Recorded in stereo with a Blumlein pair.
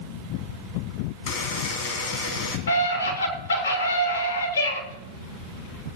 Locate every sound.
1.3 s a buzzer: 45° left, 3.5 m
2.7 s a scream: 70° left, 5.5 m